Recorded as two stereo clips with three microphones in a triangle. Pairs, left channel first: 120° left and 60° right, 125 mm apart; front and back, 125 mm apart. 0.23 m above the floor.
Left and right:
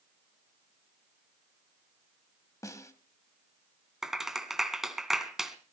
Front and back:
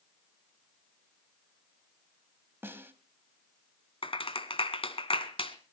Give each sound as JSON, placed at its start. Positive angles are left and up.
{"t": 2.6, "sound": "a snare drum", "azimuth_deg": 135, "distance_m": 1.7}
{"t": 4.0, "sound": "a clap", "azimuth_deg": 25, "distance_m": 1.9}